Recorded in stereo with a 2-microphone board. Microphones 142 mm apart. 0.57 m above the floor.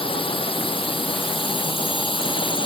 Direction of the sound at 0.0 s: 35° left (ahead or behind).